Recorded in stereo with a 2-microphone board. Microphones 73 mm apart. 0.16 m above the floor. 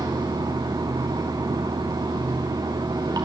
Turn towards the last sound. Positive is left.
turn(degrees=-75)  # may be behind; listen again after turning